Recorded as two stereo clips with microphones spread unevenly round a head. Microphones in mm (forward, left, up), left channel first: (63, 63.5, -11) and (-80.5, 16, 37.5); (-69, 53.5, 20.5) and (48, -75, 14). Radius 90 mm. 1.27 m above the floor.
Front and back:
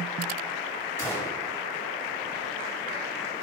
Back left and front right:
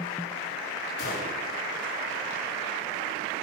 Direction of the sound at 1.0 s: 90° left.